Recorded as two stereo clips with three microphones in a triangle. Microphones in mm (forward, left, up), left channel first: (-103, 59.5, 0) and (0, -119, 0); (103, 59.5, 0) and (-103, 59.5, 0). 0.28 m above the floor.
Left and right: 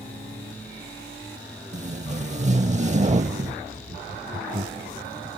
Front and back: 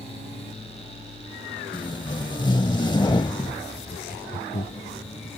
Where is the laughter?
30° right.